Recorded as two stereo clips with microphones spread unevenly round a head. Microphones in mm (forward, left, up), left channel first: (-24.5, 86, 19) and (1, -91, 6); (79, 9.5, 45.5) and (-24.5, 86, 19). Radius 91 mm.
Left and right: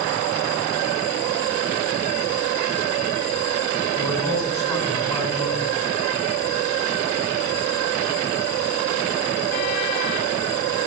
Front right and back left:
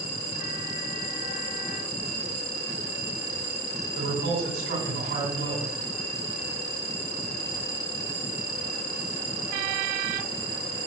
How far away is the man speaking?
About 4.5 m.